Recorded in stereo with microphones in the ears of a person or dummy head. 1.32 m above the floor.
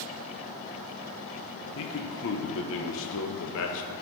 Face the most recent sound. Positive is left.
turn(degrees=70)  # may be behind; listen again after turning